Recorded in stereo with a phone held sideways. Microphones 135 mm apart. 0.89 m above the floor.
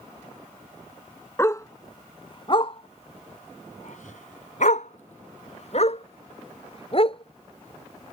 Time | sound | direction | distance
1.4 | a dog barking | 20° left (ahead or behind) | ?